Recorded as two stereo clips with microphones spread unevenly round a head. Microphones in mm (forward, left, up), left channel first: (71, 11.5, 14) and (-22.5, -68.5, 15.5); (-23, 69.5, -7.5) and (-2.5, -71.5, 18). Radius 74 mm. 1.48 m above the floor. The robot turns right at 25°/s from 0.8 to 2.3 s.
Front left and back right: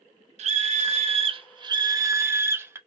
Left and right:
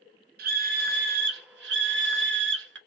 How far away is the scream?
About 0.5 m.